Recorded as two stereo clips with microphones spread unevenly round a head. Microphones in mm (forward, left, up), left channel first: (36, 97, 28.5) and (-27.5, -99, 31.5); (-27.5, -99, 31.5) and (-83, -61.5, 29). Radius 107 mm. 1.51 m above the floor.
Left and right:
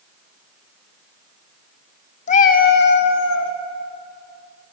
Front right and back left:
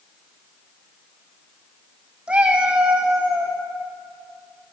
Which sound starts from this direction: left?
A cat meowing, at 2.3 s.